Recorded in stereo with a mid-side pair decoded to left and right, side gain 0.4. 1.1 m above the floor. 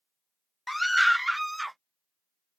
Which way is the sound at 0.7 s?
10° left.